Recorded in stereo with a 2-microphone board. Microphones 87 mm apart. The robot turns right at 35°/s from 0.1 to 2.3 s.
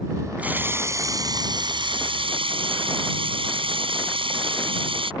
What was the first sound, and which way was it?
A running tap, 165° right.